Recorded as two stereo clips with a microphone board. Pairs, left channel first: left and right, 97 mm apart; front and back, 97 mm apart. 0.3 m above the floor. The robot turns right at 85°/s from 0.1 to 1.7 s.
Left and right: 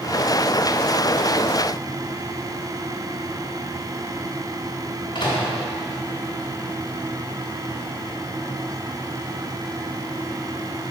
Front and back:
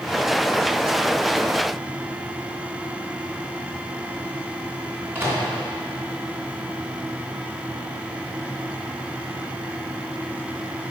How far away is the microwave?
About 2.5 m.